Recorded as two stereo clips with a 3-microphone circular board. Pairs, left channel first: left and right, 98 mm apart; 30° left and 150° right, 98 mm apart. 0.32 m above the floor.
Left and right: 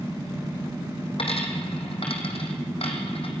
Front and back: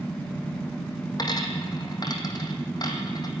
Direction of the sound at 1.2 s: 75° left.